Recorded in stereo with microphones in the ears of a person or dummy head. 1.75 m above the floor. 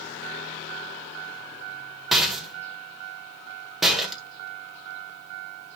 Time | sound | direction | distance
2.1 | a rattle | 5° right (ahead or behind) | 1.9 m